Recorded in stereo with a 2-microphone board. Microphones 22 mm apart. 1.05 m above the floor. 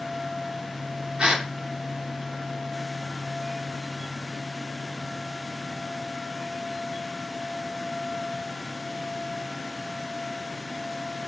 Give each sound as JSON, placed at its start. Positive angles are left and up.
{"t": 1.2, "sound": "a gasp", "side_deg": -50, "distance_m": 0.8}